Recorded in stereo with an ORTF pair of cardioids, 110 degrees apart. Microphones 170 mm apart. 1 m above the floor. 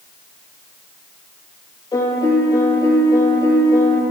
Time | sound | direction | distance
1.9 | a piano | 20° left | 10 m